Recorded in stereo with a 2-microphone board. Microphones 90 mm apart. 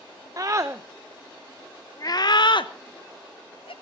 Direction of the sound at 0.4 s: 40° right (ahead or behind).